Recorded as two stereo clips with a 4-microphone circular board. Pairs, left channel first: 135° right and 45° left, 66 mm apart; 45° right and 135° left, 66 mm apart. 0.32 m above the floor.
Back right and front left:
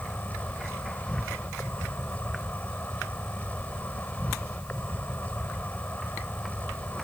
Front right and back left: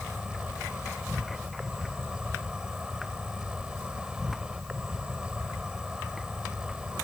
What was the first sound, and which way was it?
An insect, 160° right.